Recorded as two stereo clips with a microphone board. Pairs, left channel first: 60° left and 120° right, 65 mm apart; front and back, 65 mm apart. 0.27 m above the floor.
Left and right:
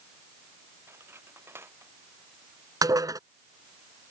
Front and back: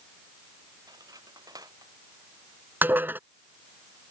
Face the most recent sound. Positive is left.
turn(degrees=-125)